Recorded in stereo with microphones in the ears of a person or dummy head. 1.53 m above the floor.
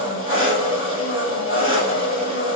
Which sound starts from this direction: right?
An engine running, at 0.0 s.